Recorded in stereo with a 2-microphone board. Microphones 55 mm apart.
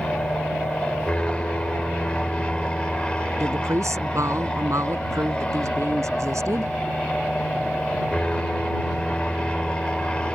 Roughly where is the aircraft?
Centre.